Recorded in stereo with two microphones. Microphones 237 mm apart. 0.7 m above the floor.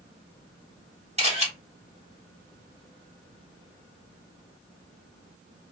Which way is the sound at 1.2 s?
25° right (ahead or behind).